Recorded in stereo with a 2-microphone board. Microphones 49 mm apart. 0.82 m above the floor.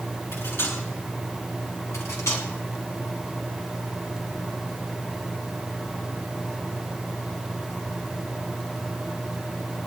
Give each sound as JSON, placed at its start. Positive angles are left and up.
{"t": 0.3, "sound": "cutlery clinking", "side_deg": 60, "distance_m": 6.5}
{"t": 1.9, "sound": "cutlery clinking", "side_deg": 75, "distance_m": 4.5}